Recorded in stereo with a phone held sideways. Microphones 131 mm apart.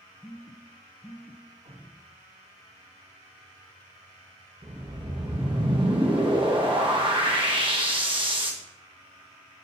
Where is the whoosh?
40° right (ahead or behind), 1.1 m.